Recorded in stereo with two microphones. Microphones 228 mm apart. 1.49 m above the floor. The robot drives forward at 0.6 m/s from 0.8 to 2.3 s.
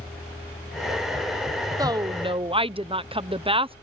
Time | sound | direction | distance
1.8 | a woman speaking | 15° right (ahead or behind) | ?